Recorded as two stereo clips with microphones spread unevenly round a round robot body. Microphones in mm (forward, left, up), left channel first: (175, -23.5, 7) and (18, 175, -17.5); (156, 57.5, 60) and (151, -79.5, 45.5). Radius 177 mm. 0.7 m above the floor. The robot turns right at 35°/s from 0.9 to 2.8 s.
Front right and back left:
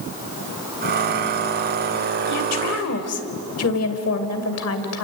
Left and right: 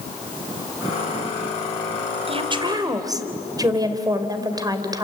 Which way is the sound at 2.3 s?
50° right.